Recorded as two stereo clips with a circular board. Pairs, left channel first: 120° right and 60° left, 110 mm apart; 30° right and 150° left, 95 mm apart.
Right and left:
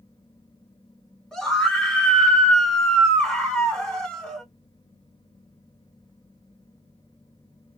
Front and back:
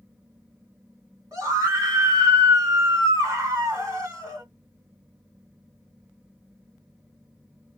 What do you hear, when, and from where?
1.3 s a scream: 165° left, 1.6 m